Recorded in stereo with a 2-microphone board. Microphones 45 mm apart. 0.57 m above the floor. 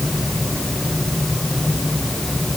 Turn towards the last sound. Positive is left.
No sound to turn to.